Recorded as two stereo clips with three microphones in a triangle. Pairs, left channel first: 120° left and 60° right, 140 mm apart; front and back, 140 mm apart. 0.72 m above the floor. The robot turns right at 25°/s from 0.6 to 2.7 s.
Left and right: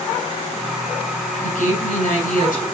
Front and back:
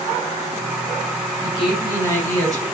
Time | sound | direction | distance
1.4 | a woman speaking | 90° left | 8.5 m